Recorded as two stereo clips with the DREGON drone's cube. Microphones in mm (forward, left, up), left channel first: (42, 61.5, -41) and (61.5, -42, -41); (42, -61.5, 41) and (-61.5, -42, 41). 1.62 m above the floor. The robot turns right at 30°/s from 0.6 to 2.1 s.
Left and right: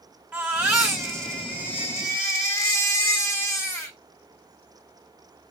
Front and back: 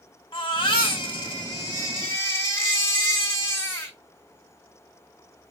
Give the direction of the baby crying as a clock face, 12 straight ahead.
12 o'clock.